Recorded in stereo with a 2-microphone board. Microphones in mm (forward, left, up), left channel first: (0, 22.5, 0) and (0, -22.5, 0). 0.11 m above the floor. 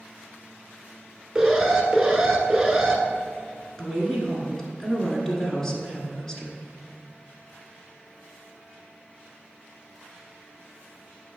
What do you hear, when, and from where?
1.4 s an alarm: 15° right (ahead or behind), 1.1 m
3.8 s a woman speaking: 10° left (ahead or behind), 1.4 m